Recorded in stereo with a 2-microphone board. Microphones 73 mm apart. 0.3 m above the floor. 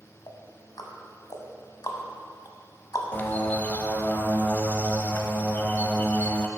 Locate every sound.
0.3 s ticking: 60° left (ahead or behind), 1.0 m
3.1 s a bird: 25° left (ahead or behind), 0.6 m